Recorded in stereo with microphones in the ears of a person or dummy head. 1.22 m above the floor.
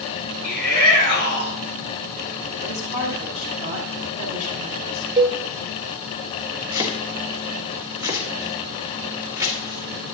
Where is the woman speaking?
40° right (ahead or behind), 4.5 m.